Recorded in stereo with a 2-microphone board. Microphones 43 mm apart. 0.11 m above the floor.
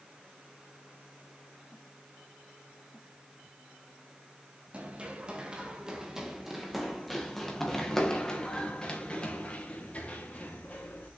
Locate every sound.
4.7 s running footsteps: 25° right (ahead or behind), 2.5 m; by 11.1 s 35° left (ahead or behind), 4 m